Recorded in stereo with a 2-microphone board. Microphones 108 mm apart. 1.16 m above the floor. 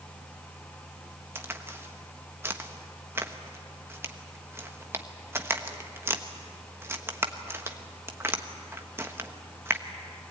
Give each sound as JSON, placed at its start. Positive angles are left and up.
{"t": 1.4, "sound": "a crack", "side_deg": -20, "distance_m": 1.1}